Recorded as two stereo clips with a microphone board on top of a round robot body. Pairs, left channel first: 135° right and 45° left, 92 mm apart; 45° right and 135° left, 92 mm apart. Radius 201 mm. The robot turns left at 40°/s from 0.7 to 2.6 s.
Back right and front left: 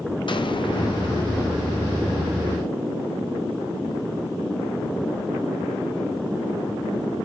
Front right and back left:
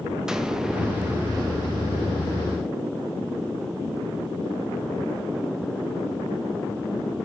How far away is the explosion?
About 1.6 m.